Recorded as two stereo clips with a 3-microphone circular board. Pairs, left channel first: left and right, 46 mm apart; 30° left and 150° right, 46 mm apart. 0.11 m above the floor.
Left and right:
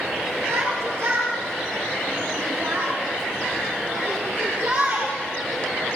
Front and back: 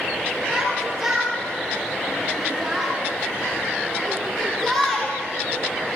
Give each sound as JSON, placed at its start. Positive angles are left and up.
{"t": 0.5, "sound": "a shout", "azimuth_deg": -75, "distance_m": 5.0}